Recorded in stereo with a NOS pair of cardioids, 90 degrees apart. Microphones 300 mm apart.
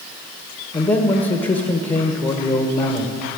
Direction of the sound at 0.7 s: 20° left.